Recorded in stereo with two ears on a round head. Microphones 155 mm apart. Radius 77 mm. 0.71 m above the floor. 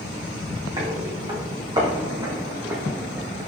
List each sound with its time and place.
0.8 s footsteps: 25° right (ahead or behind), 3.5 m; by 3.5 s 20° right (ahead or behind), 1.3 m